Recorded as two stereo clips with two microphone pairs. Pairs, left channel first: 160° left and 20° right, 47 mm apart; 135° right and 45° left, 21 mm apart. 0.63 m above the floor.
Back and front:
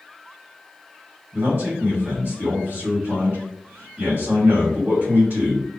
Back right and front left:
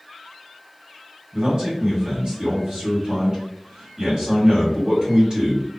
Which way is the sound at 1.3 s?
10° left.